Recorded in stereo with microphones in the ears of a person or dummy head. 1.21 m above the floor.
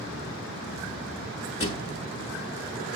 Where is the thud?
25° left (ahead or behind), 1.0 m.